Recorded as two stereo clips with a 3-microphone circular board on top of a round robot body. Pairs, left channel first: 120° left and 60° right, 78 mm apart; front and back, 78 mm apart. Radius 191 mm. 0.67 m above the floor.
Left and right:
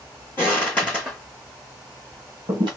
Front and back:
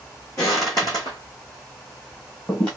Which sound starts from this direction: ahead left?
Footsteps, at 0.4 s.